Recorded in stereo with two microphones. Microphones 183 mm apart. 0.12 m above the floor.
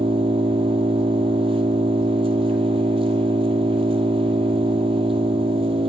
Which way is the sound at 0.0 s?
30° right (ahead or behind).